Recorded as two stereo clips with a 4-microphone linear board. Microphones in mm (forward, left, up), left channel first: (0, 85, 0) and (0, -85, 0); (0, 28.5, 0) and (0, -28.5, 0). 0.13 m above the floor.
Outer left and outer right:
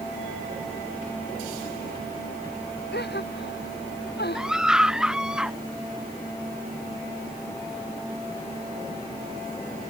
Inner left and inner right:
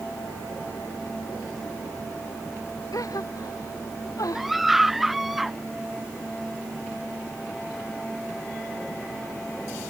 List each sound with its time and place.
2.9 s a gasp: 80° left
4.3 s a scream: 5° right (ahead or behind)